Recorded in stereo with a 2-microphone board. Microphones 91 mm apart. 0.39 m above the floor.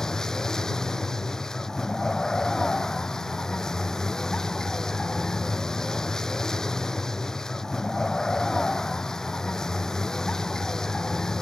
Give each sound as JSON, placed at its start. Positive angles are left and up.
{"t": 0.0, "sound": "a vehicle", "side_deg": 10}